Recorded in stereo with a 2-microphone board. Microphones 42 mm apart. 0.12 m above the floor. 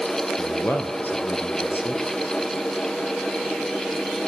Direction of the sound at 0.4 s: 50° left (ahead or behind).